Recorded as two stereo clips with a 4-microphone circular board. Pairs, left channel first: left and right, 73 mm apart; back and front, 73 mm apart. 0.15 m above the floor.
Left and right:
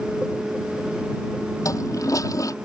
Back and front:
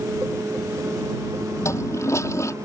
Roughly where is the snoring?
I don't hear snoring.